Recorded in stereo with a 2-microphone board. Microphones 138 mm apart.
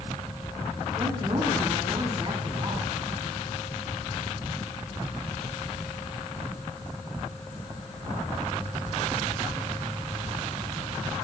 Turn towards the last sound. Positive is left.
turn(degrees=-35)  # may be behind; listen again after turning